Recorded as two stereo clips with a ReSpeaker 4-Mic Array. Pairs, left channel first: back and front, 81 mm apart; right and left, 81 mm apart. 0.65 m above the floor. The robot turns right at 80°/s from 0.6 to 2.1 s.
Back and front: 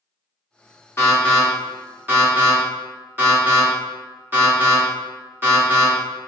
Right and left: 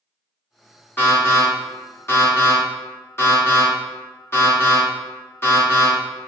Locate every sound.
1.0 s an alarm: 135° right, 1.8 m; by 5.9 s 45° right, 1.8 m